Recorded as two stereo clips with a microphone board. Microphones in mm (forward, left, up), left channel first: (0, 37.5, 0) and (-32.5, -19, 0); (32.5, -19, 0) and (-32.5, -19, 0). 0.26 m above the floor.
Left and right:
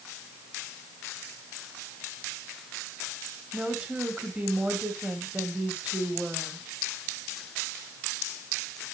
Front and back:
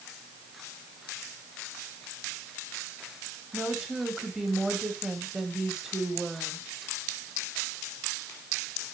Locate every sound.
3.5 s a woman speaking: 110° right, 1.6 m